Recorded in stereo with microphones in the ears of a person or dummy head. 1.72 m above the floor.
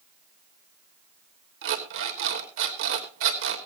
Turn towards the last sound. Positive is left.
turn(degrees=-70)  # may be behind; listen again after turning